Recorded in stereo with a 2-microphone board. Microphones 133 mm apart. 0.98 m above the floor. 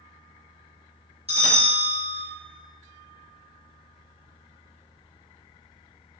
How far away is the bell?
About 2 m.